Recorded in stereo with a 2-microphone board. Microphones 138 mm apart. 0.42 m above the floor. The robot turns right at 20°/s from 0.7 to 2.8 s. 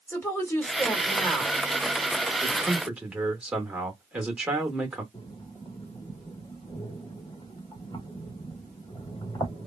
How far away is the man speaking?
About 1.0 m.